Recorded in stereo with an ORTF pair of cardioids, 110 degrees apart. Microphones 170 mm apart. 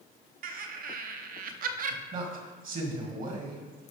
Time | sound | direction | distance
0.4 | laughter | 55° right | 1.1 m
2.1 | a man speaking | 50° right | 2.5 m